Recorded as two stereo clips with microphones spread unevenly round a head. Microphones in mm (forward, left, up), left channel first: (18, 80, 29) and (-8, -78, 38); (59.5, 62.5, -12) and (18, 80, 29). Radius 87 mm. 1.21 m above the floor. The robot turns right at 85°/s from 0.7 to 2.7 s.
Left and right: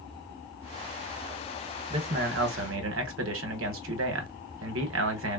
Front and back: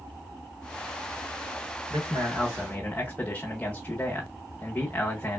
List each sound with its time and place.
1.9 s a man speaking: 165° right, 1.0 m; by 5.4 s 95° right, 1.0 m